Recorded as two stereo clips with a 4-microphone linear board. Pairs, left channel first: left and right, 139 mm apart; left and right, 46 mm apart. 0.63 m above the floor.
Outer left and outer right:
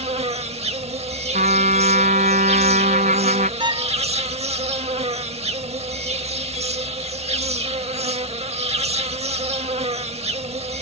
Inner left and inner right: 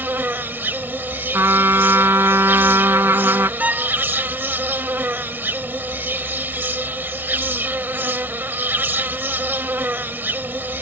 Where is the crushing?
I don't hear crushing.